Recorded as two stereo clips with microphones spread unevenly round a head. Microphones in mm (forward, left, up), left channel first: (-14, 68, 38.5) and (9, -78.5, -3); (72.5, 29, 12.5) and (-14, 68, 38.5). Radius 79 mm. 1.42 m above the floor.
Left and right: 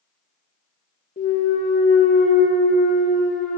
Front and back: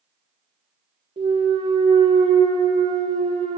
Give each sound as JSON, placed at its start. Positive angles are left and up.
{"t": 1.2, "sound": "a clunk", "azimuth_deg": 135, "distance_m": 1.1}